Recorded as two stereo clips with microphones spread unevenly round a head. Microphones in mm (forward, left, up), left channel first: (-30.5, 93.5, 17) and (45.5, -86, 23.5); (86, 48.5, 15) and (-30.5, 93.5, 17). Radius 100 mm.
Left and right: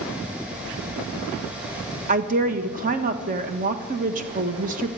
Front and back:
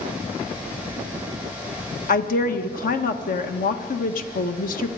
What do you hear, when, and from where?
2.1 s a woman speaking: 15° right, 1.4 m